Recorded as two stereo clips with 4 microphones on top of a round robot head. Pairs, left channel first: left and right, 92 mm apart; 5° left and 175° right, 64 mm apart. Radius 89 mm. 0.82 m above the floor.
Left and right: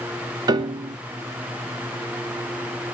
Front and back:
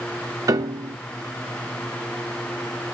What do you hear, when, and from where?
0.5 s a piano: 140° right, 0.8 m